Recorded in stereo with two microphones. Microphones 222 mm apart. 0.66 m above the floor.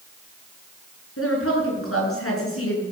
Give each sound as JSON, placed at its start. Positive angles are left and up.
{"t": 1.2, "sound": "a woman speaking", "side_deg": 85, "distance_m": 7.0}